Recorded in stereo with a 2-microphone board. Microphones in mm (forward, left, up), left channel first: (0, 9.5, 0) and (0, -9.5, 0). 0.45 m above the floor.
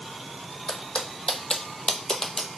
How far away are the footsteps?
About 1.0 m.